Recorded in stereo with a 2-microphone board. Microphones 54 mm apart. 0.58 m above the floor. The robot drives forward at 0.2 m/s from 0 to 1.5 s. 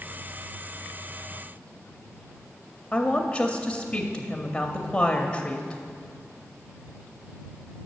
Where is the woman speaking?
15° left (ahead or behind), 0.6 m.